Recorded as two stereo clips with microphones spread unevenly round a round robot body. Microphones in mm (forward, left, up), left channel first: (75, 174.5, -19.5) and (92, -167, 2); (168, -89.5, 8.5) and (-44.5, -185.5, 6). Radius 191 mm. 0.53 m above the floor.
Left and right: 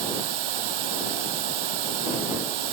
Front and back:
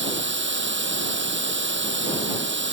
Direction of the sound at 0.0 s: 120° right.